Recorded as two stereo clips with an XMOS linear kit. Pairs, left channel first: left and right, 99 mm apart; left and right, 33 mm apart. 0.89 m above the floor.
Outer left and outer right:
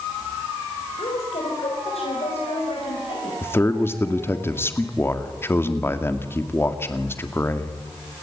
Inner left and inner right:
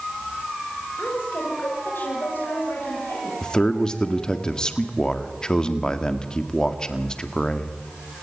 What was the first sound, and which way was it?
A woman speaking, 80° left.